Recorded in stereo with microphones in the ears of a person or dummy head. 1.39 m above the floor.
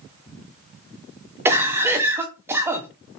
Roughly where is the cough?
Centre.